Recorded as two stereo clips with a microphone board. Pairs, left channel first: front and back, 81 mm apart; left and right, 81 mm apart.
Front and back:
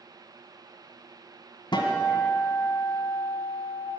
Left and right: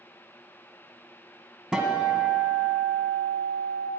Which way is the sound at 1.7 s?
10° right.